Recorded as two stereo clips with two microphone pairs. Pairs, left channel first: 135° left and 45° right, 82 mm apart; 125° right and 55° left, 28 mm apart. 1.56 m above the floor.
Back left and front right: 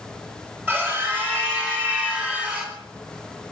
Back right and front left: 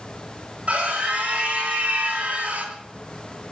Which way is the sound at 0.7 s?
20° left.